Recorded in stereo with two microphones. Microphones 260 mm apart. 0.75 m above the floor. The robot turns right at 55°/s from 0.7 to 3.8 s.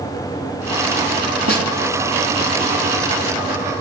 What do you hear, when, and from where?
1.5 s a snare drum: 60° right (ahead or behind), 2.5 m; by 1.7 s 75° right (ahead or behind), 2.5 m